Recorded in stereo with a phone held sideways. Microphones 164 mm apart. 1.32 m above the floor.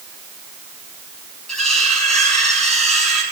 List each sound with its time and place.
1.5 s cutlery clinking: 5° left (ahead or behind), 8 m